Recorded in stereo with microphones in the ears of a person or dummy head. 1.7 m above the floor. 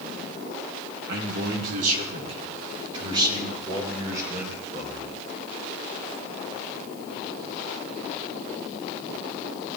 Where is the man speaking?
65° right (ahead or behind), 3.5 m; by 5.2 s 10° right (ahead or behind), 8 m.